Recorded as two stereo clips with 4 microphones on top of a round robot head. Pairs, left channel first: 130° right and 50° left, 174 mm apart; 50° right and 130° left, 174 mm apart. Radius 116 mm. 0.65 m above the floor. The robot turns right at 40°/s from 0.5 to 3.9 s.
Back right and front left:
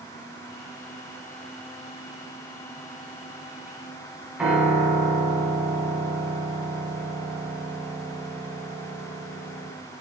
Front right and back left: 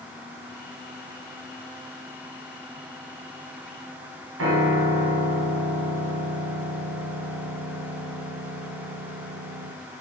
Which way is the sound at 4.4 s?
135° left.